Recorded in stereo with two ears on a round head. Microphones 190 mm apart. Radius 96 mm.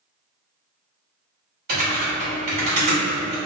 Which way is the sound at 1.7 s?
50° right (ahead or behind).